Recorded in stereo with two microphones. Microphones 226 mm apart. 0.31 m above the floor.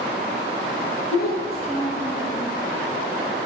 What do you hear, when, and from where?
1.1 s a child speaking: 45° left (ahead or behind), 5 m